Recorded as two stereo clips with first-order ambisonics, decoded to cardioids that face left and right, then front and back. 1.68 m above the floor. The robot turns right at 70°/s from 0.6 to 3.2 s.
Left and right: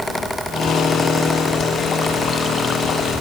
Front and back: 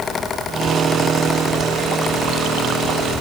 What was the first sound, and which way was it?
Only background noise.